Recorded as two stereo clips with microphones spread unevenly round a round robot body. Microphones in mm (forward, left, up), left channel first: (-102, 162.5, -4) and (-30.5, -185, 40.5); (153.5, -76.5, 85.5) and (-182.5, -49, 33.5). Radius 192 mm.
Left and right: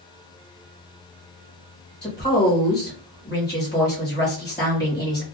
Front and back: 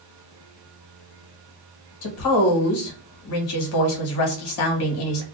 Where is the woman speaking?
30° left, 1.1 m.